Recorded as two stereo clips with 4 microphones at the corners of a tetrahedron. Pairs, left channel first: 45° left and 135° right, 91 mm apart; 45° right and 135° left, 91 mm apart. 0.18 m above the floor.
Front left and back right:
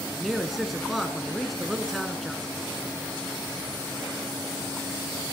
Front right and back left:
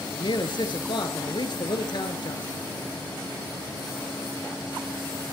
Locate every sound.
0.1 s a man speaking: 45° right, 2.5 m